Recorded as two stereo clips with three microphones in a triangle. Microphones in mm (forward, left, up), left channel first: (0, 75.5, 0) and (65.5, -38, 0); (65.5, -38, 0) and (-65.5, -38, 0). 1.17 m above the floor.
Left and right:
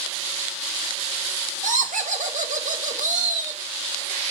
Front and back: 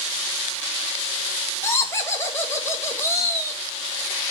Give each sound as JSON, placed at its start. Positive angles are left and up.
{"t": 1.6, "sound": "laughter", "azimuth_deg": -70, "distance_m": 1.3}